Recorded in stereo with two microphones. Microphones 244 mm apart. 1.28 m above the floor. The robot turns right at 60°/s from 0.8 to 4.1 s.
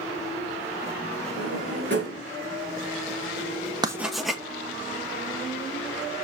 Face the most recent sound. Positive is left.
turn(degrees=0)  # may be behind; listen again after turning